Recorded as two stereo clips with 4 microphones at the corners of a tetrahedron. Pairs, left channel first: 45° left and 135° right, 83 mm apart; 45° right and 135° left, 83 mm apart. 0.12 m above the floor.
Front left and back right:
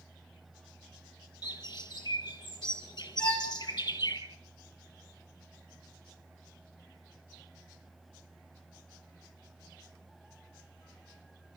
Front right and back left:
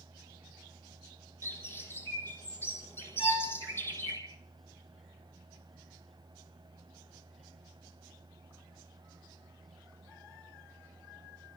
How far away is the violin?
About 6.5 m.